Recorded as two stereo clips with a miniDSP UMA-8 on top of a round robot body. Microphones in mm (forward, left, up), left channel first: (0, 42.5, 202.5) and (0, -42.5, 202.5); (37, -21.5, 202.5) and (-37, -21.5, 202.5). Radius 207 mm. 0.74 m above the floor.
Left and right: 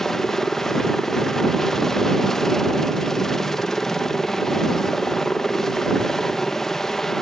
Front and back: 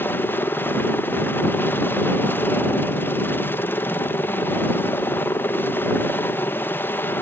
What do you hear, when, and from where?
0.0 s a helicopter: 10° left